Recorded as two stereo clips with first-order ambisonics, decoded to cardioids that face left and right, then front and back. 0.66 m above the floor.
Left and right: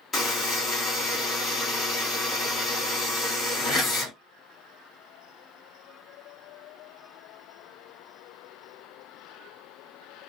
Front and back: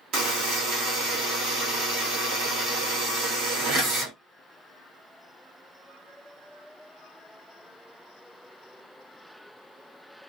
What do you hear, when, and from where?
0.1 s a buzzer: 160° left, 1.3 m